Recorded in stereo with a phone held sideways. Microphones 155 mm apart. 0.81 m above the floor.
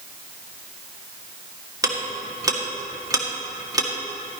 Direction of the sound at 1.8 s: 25° right (ahead or behind).